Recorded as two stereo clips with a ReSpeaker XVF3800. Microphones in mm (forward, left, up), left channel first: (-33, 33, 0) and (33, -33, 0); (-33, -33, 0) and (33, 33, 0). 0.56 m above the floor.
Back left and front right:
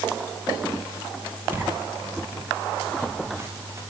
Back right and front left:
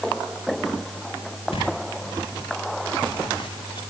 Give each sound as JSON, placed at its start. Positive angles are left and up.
{"t": 1.5, "sound": "footsteps", "azimuth_deg": -115, "distance_m": 9.0}